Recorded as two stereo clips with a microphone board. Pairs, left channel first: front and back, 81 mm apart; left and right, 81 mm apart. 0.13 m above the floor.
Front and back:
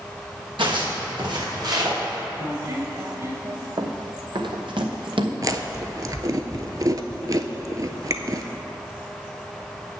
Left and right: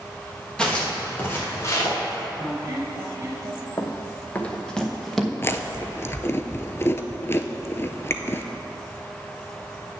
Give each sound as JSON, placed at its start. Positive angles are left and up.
{"t": 0.6, "sound": "footsteps", "azimuth_deg": 170, "distance_m": 3.5}
{"t": 2.4, "sound": "a squeak", "azimuth_deg": -145, "distance_m": 2.0}
{"t": 3.8, "sound": "running footsteps", "azimuth_deg": 145, "distance_m": 1.2}
{"t": 5.4, "sound": "chewing", "azimuth_deg": 145, "distance_m": 0.6}